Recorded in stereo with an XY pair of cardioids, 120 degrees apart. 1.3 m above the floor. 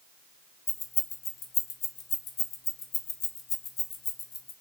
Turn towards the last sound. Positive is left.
turn(degrees=60)